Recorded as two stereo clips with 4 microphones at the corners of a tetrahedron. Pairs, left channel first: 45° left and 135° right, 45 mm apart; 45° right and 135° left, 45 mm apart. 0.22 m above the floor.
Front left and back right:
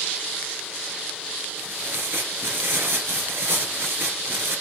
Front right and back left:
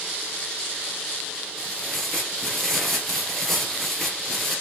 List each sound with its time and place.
1.6 s tearing paper: 130° right, 4 m